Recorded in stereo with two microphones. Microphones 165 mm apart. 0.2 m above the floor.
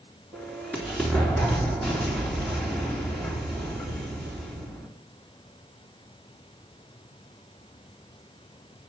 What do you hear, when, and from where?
0.3 s an explosion: 5° left (ahead or behind), 3.5 m